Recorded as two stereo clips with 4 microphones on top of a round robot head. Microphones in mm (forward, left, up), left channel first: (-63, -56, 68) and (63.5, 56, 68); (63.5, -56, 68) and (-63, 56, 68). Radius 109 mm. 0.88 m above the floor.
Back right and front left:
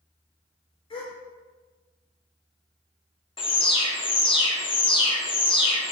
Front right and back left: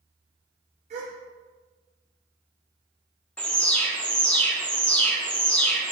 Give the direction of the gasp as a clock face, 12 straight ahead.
6 o'clock.